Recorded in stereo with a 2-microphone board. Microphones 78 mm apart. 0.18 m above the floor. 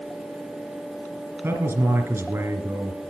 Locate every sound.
1.4 s a man speaking: 35° right (ahead or behind), 2 m